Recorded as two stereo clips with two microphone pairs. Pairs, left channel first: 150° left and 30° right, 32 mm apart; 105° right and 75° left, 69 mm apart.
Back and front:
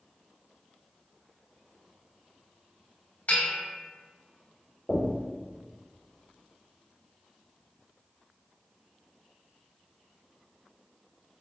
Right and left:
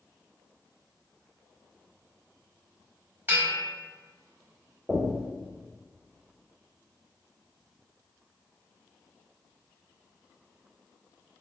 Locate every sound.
3.3 s a bell: 130° left, 0.8 m
4.9 s knocking: 155° left, 0.7 m